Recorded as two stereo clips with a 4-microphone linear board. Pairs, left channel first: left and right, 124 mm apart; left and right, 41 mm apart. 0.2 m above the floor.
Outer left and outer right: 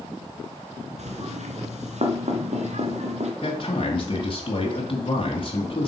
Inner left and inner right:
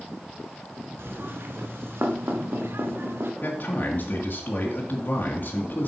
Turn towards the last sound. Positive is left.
turn(degrees=45)  # may be behind; listen again after turning